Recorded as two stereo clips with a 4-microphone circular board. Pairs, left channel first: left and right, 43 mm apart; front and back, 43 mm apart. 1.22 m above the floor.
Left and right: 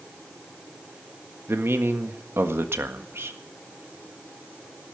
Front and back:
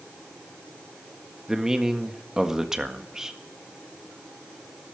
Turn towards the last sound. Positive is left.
turn(degrees=-105)